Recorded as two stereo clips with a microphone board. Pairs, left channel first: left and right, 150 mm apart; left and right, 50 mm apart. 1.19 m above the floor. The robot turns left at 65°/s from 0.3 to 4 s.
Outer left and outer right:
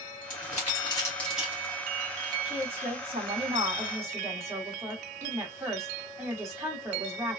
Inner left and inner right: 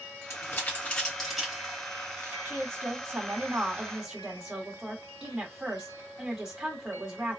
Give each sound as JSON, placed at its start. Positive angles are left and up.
{"t": 0.3, "sound": "crumpling", "side_deg": 65, "distance_m": 1.4}
{"t": 2.5, "sound": "a woman speaking", "azimuth_deg": -60, "distance_m": 1.8}